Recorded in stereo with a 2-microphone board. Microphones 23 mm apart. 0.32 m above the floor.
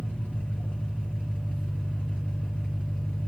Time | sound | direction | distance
0.0 | an engine running | 70° left (ahead or behind) | 3 m